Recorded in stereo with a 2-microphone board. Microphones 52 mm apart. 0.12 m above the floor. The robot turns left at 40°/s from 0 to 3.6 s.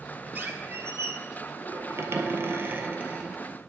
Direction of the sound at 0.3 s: 40° right.